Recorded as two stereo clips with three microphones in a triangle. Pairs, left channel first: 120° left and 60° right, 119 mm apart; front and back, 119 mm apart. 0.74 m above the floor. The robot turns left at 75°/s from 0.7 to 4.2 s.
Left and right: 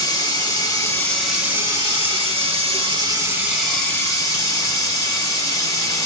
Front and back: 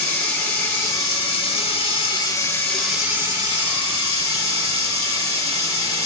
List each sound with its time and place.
0.0 s running water: 75° left, 1.2 m; by 6.1 s 170° left, 1.2 m